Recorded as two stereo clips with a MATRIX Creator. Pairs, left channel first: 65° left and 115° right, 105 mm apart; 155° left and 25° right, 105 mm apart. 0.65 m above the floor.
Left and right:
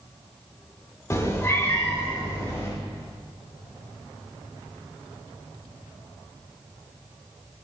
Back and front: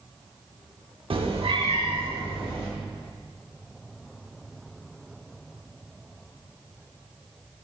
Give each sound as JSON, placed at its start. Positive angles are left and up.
{"t": 1.1, "sound": "a cat meowing", "azimuth_deg": 10, "distance_m": 0.7}